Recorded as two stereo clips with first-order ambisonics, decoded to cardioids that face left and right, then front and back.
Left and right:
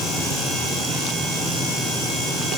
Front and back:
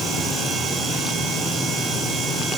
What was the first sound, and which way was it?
Only background noise.